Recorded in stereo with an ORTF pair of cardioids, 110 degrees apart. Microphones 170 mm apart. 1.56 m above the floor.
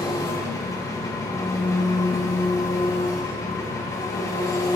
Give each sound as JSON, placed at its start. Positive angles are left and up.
{"t": 0.0, "sound": "an engine running", "azimuth_deg": 20, "distance_m": 1.1}